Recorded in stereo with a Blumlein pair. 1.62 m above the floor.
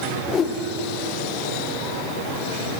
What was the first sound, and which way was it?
A whoosh, 20° left.